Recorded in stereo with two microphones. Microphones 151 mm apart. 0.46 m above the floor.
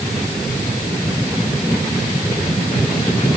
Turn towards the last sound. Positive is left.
No sound to turn to.